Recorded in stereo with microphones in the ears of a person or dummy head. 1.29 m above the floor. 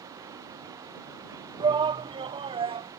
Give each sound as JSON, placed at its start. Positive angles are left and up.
{"t": 1.6, "sound": "a shout", "side_deg": -20}